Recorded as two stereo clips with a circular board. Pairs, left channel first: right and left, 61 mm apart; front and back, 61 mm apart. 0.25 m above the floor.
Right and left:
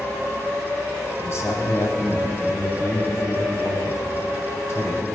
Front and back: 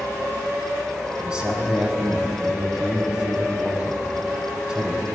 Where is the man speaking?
110° right, 1.5 m.